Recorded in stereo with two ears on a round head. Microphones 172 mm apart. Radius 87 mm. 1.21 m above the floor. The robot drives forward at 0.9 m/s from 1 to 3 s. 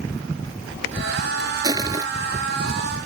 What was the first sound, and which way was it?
Crushing, 20° right (ahead or behind).